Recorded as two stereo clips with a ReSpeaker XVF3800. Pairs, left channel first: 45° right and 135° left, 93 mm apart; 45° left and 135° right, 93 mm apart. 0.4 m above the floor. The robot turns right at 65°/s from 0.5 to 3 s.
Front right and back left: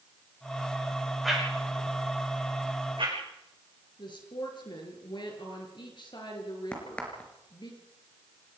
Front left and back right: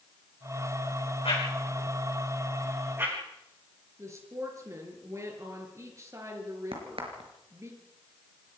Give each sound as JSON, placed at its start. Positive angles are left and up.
{"t": 1.2, "sound": "a whoosh", "azimuth_deg": 45, "distance_m": 6.5}
{"t": 4.0, "sound": "a woman speaking", "azimuth_deg": -80, "distance_m": 5.5}
{"t": 6.7, "sound": "a crack", "azimuth_deg": -120, "distance_m": 4.5}